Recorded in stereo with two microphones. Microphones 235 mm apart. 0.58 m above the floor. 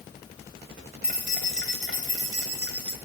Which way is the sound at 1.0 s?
45° right (ahead or behind).